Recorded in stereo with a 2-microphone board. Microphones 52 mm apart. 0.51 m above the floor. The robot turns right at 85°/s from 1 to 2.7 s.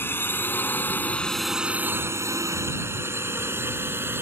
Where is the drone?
45° left (ahead or behind); by 4.2 s 50° right (ahead or behind).